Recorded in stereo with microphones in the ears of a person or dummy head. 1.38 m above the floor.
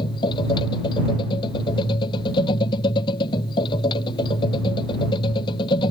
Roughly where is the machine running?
Left.